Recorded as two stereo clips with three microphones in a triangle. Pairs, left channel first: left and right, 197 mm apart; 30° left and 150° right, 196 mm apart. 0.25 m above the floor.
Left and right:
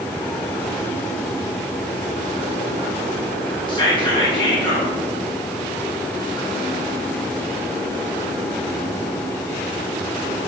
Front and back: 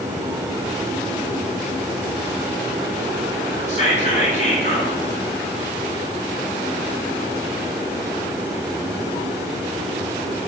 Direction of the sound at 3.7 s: 45° left.